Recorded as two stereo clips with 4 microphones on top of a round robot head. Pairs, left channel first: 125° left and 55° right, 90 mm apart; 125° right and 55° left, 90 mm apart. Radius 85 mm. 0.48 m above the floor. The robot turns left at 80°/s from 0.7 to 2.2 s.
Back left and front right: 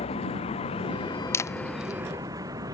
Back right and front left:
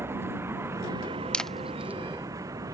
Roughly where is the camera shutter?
Behind.